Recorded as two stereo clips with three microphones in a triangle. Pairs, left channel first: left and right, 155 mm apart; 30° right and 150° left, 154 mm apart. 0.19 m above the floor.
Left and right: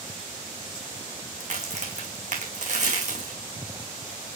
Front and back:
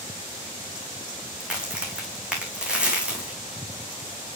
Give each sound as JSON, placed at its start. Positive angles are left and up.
{"t": 1.4, "sound": "a crack", "azimuth_deg": -125, "distance_m": 3.0}